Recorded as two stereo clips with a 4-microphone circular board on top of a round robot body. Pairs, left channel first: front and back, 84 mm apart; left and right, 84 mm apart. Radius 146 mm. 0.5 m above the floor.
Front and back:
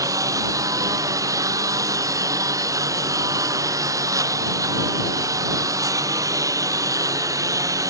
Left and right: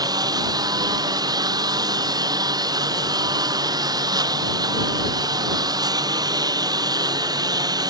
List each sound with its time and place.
0.0 s a lawn mower: 130° right